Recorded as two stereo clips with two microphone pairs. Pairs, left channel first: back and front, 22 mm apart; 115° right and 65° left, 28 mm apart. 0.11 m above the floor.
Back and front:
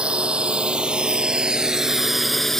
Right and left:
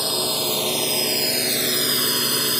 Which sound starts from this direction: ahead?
A drone, at 0.0 s.